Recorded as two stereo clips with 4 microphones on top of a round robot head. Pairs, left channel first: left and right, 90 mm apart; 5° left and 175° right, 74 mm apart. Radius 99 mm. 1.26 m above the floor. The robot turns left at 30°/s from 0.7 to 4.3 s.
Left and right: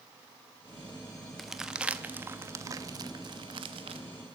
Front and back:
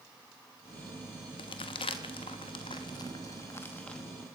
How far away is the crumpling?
About 0.8 m.